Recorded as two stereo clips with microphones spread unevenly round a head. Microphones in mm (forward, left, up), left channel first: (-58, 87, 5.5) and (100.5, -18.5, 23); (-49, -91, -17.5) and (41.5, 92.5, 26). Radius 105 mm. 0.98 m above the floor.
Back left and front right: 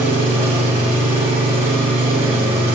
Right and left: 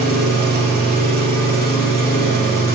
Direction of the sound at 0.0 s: 40° left.